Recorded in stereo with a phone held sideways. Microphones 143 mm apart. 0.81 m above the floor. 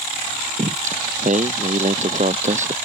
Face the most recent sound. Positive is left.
turn(degrees=-55)  # may be behind; listen again after turning